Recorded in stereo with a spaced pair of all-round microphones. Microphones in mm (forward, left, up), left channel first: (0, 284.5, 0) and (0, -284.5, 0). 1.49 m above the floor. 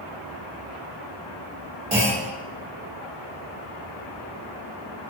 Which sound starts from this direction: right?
A clunk, at 1.9 s.